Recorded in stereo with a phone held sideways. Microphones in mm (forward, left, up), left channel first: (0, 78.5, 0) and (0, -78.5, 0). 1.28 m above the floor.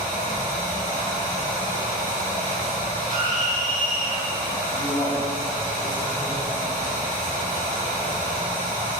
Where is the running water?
50° left (ahead or behind), 1.4 m.